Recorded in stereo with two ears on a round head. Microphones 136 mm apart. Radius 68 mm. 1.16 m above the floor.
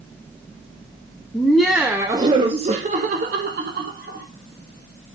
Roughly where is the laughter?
Centre.